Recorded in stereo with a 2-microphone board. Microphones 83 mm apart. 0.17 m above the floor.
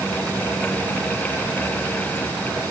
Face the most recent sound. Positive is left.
No sound to turn to.